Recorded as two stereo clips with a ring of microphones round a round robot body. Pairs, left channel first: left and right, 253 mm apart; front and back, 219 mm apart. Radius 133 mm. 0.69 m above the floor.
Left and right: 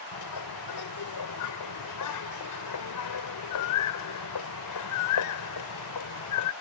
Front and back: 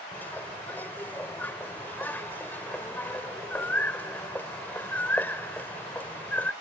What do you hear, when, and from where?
0.1 s a bird: 80° left